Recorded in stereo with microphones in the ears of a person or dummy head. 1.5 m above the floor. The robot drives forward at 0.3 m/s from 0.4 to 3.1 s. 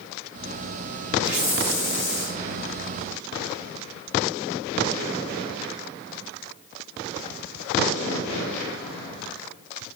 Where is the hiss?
60° left (ahead or behind), 1.2 m; by 2.4 s 50° left (ahead or behind), 1.3 m.